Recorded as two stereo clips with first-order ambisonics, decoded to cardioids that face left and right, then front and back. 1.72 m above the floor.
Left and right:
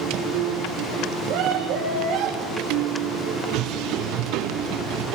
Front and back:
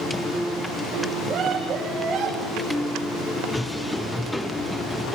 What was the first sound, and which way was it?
A scream, 120° right.